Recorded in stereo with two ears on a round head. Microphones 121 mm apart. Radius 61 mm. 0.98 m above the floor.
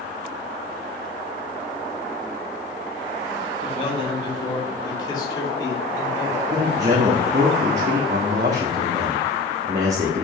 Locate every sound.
3.6 s a man speaking: 40° left (ahead or behind), 1.8 m; by 6.4 s 25° left (ahead or behind), 3.5 m
6.5 s a man speaking: 50° right (ahead or behind), 1.3 m